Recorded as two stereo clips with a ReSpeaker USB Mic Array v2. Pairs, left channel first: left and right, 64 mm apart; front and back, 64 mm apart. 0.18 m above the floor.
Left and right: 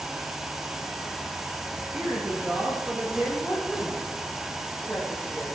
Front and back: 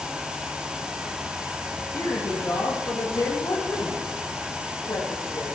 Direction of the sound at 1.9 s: 40° right.